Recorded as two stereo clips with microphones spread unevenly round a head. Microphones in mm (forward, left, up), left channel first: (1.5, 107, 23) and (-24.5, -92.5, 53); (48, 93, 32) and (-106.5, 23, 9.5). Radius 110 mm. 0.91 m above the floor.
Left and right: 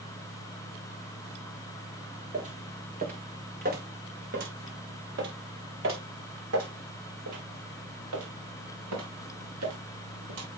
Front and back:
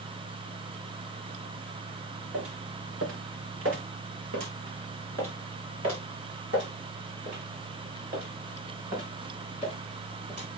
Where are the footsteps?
150° right, 4 m; by 10.5 s 90° right, 5.5 m.